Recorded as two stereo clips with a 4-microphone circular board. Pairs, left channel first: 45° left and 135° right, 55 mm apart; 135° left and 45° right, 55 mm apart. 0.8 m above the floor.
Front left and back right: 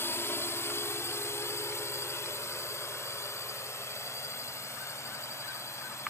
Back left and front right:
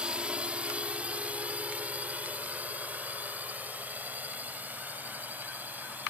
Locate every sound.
0.0 s a drone: 20° left; by 6.1 s 15° left